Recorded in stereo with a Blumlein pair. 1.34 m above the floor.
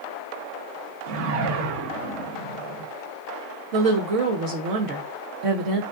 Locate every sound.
1.1 s a whoosh: 45° right, 0.6 m
3.7 s a woman speaking: 45° right, 0.6 m